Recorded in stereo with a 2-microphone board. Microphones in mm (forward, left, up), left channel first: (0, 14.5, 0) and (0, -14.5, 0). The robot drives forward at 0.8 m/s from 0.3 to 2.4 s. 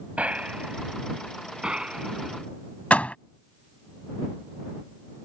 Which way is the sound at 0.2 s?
55° right (ahead or behind).